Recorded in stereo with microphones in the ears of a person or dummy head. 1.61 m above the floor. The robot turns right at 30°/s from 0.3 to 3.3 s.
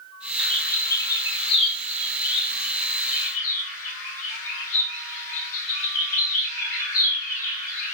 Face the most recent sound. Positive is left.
turn(degrees=75)  # may be behind; listen again after turning